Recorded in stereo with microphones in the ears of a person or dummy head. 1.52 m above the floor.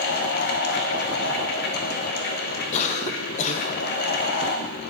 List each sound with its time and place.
0.0 s a fan: 55° left (ahead or behind), 0.7 m
2.7 s a cough: 40° left (ahead or behind), 0.8 m